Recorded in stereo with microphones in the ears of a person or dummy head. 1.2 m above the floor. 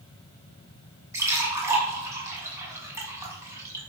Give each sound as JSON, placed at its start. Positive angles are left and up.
{"t": 1.1, "sound": "a splash", "side_deg": -15, "distance_m": 6.5}